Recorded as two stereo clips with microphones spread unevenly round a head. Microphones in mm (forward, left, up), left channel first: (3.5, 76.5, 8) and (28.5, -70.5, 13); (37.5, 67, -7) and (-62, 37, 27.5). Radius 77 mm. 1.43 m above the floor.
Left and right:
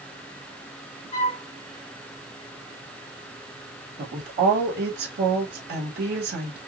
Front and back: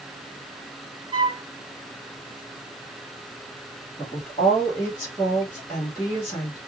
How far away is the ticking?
No ticking in this recording.